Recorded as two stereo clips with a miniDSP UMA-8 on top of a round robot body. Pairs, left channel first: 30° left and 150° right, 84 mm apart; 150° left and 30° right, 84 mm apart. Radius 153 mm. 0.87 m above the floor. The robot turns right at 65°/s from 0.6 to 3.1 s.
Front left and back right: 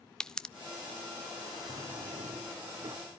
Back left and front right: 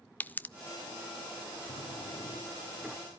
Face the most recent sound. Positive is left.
turn(degrees=-105)